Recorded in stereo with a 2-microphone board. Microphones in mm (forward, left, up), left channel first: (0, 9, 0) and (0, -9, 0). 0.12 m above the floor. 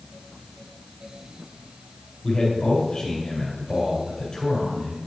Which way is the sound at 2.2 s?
45° left (ahead or behind).